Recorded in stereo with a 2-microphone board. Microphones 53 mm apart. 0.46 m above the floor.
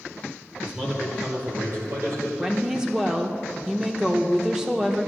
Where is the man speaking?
5° right (ahead or behind), 1.6 m; by 2.3 s 65° right (ahead or behind), 3 m.